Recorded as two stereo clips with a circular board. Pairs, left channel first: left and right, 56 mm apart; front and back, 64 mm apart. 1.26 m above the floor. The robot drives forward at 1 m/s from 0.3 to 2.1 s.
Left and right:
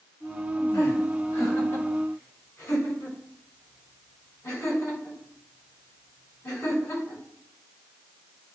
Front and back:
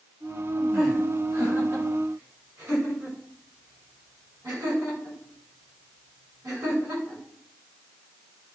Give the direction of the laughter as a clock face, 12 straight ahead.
8 o'clock.